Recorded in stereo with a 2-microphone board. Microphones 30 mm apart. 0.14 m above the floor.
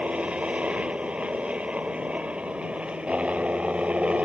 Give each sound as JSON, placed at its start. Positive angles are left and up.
{"t": 0.0, "sound": "a helicopter", "side_deg": -40}